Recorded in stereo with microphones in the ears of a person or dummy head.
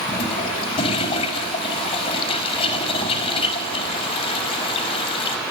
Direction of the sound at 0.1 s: 30° left (ahead or behind).